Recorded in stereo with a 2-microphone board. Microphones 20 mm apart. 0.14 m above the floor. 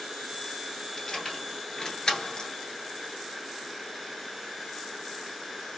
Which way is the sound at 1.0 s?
25° left (ahead or behind).